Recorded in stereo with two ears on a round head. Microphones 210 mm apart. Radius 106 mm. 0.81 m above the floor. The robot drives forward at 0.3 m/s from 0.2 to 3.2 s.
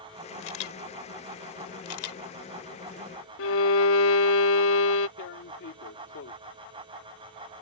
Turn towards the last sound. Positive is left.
turn(degrees=60)  # may be behind; listen again after turning